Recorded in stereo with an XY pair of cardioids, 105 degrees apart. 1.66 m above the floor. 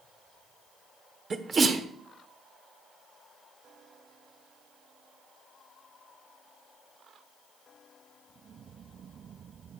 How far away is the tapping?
No tapping in this recording.